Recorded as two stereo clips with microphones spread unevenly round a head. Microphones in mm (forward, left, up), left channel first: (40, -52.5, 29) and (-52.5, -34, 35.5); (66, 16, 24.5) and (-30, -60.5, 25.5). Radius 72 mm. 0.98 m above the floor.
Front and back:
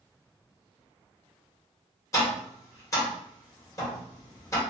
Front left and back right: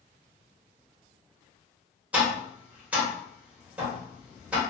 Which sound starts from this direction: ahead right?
Tapping, at 2.1 s.